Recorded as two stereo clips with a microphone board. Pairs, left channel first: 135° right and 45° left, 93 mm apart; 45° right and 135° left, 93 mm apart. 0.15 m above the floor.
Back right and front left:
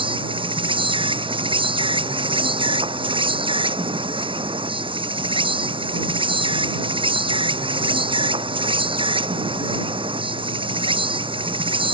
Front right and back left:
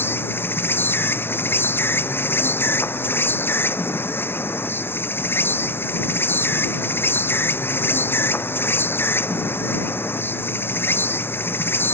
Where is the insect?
20° left.